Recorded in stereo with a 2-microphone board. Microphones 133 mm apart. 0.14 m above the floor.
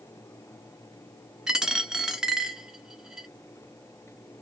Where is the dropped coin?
5° right (ahead or behind), 0.6 m.